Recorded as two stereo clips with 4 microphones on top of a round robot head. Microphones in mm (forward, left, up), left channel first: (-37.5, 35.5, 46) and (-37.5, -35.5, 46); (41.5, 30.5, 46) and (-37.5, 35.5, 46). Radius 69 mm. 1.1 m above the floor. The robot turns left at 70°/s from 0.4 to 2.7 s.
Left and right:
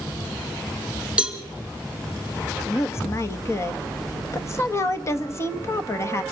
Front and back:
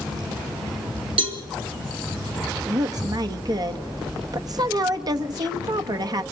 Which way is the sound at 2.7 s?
140° left.